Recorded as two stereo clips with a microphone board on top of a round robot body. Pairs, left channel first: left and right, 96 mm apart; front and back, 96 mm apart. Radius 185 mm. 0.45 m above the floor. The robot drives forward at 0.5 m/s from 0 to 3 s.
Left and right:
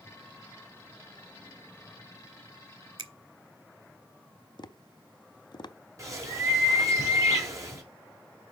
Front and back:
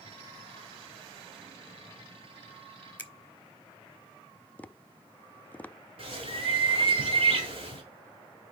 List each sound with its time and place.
3.0 s a finger snap: 70° right, 1.4 m
4.6 s tapping: 70° left, 0.7 m
6.0 s a bird: 150° right, 1.9 m